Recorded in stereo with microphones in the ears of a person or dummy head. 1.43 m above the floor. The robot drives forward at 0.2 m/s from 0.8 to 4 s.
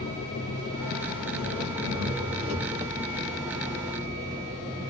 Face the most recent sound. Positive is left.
turn(degrees=30)  # may be behind; listen again after turning